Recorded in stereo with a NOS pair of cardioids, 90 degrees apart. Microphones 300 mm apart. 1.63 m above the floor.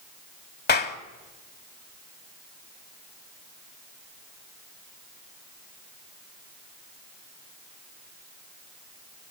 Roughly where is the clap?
Ahead left.